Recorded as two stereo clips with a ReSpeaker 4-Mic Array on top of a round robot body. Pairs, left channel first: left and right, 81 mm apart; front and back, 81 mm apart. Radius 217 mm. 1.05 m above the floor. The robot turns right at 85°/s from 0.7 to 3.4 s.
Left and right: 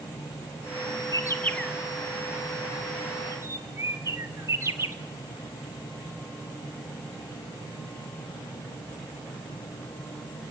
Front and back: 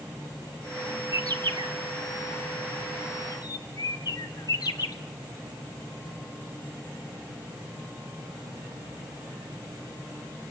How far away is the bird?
About 1.6 m.